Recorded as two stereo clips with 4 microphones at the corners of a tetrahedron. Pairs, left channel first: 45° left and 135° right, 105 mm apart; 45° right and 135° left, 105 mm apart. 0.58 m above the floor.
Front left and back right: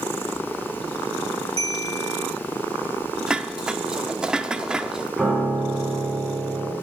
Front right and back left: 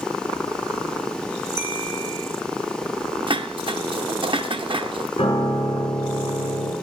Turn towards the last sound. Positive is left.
turn(degrees=-50)